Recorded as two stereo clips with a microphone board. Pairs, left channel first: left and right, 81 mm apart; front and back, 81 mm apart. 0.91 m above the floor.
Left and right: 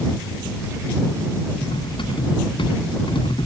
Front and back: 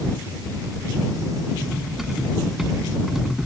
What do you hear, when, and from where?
1.6 s cutlery clinking: 95° left